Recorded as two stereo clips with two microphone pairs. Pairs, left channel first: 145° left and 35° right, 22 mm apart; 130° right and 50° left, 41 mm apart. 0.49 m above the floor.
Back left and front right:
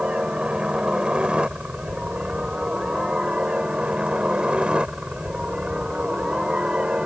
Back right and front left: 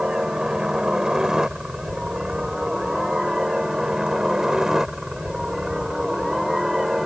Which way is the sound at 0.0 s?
15° right.